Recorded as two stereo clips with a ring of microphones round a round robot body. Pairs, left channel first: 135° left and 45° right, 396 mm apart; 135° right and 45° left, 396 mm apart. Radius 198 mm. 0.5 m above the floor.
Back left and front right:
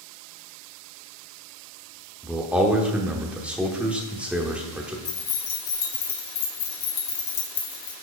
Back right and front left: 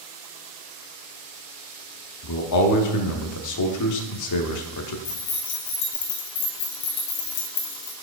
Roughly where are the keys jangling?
Behind.